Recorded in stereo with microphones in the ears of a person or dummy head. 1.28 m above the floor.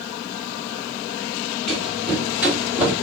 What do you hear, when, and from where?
1.7 s running footsteps: 5° left (ahead or behind), 1.7 m; by 2.9 s 15° right (ahead or behind), 2 m